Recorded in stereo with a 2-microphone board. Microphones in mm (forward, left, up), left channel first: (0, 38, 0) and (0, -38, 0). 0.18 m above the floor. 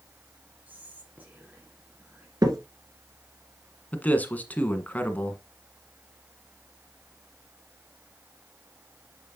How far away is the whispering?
About 2 m.